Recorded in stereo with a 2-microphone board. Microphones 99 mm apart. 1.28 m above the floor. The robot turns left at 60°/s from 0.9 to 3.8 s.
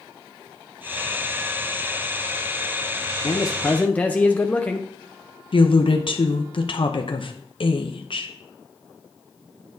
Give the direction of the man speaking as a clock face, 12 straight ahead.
10 o'clock.